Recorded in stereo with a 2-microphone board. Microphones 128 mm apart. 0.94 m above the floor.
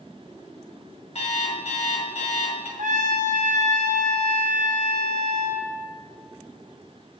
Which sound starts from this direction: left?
An alarm clock, at 1.1 s.